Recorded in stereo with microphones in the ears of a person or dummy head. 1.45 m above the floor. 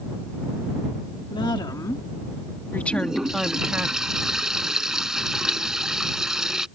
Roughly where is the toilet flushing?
Centre.